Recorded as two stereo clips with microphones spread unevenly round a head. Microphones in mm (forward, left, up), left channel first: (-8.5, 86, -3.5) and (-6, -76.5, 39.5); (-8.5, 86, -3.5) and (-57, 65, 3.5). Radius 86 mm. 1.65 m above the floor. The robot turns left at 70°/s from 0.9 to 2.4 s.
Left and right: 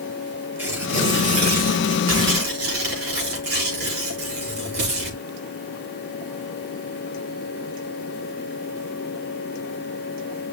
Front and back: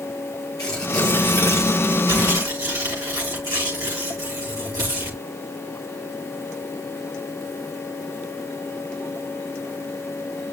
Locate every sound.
0.6 s tearing paper: 10° right, 5.5 m; by 5.2 s 115° right, 5.5 m